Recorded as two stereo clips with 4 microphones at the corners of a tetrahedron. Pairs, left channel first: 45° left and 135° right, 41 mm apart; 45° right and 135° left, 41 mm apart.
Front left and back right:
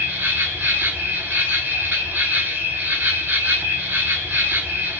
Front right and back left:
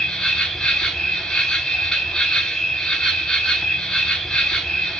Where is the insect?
120° right, 0.8 m.